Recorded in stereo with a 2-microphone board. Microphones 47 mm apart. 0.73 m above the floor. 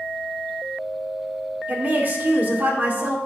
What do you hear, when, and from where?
1.7 s a woman speaking: 45° right (ahead or behind), 2.0 m